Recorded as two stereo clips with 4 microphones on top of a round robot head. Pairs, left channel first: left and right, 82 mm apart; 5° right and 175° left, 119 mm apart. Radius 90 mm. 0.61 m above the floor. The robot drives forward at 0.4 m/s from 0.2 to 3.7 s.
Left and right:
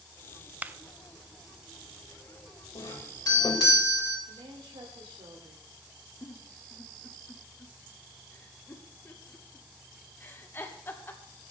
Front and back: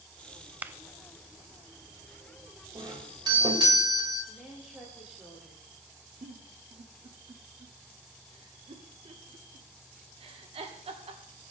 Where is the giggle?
150° left, 1.7 m.